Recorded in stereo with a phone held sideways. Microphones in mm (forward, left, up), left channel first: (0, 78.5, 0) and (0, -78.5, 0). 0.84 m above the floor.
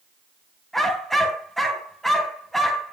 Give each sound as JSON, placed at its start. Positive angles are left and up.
{"t": 0.7, "sound": "a dog barking", "side_deg": 0, "distance_m": 2.5}